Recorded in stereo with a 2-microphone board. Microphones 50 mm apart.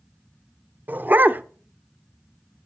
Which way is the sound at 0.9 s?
40° right (ahead or behind).